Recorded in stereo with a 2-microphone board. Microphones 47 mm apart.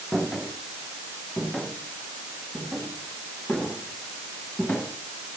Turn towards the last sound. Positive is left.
turn(degrees=25)  # may be behind; listen again after turning